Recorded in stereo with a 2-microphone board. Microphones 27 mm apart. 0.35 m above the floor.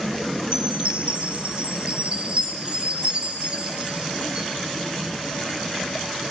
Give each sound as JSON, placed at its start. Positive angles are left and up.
{"t": 0.5, "sound": "a chime", "side_deg": -45, "distance_m": 5.0}